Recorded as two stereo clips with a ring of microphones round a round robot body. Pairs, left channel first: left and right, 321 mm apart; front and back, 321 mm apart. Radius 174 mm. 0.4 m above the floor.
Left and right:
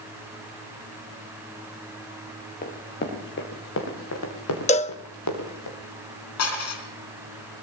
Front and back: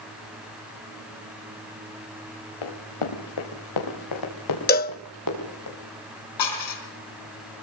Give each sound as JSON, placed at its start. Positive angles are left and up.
{"t": 2.6, "sound": "running footsteps", "azimuth_deg": 20, "distance_m": 4.0}
{"t": 4.7, "sound": "a cowbell", "azimuth_deg": 35, "distance_m": 0.5}
{"t": 6.4, "sound": "dishes clattering", "azimuth_deg": 40, "distance_m": 3.5}